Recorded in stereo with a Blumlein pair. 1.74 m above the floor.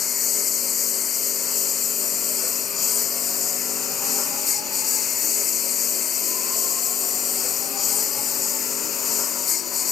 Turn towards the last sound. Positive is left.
turn(degrees=20)